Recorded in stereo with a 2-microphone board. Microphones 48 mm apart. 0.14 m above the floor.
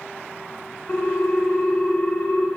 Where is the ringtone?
25° left (ahead or behind), 1.2 m.